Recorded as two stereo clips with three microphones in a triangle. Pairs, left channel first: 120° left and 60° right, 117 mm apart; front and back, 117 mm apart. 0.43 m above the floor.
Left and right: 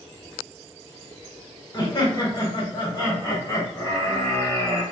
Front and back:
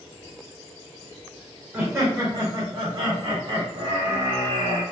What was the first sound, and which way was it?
Laughter, 115° left.